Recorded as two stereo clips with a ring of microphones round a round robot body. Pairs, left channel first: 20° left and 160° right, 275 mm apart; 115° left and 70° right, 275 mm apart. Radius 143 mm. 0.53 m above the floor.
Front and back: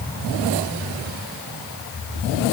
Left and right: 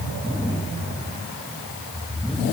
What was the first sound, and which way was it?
Only background noise.